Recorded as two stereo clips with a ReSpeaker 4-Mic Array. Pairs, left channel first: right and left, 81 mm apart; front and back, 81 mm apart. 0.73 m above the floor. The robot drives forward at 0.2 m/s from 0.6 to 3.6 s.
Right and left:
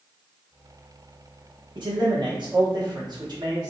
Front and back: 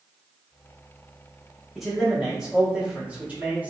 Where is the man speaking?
90° left, 1.1 m; by 3.7 s 110° left, 1.1 m.